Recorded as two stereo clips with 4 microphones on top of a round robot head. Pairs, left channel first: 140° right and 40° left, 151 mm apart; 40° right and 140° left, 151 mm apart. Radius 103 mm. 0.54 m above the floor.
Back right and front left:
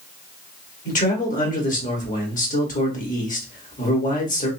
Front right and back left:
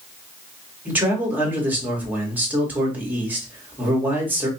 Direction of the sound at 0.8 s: 145° right.